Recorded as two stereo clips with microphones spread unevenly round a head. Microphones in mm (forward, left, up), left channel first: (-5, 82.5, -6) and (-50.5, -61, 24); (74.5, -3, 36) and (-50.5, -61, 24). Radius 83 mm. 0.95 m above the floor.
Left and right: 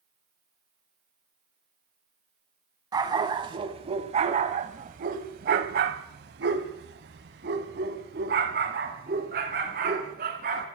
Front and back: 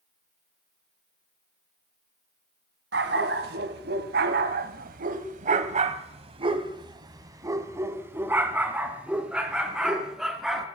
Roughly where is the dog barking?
Behind.